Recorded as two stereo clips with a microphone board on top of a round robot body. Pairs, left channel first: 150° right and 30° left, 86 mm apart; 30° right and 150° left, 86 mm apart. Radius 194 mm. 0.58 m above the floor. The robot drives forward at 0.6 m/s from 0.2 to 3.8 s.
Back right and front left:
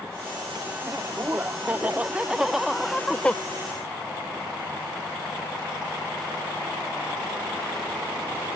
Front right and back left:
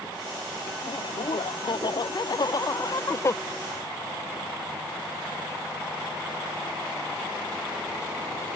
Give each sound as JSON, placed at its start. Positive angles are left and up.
{"t": 0.8, "sound": "laughter", "azimuth_deg": -30}